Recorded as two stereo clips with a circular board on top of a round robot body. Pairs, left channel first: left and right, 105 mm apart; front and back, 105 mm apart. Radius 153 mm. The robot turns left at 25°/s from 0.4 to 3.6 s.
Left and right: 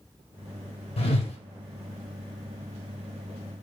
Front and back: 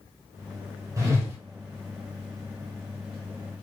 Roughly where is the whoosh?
Behind left.